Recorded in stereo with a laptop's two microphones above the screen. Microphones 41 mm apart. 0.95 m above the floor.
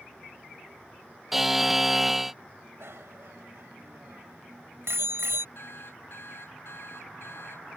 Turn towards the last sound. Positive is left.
turn(degrees=70)  # may be behind; listen again after turning